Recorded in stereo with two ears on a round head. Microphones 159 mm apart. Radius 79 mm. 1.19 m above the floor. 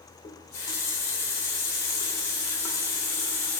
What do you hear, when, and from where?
0.2 s a running tap: 15° left (ahead or behind), 2 m